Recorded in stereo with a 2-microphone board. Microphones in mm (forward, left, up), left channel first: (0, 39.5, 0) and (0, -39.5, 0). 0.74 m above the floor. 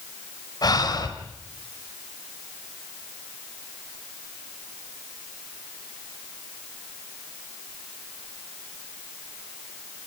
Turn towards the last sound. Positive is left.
turn(degrees=60)  # may be behind; listen again after turning